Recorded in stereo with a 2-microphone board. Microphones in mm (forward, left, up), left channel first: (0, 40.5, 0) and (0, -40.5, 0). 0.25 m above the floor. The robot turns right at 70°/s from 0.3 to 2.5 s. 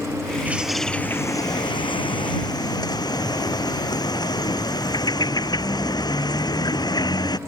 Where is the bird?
20° right; by 7.4 s 125° left.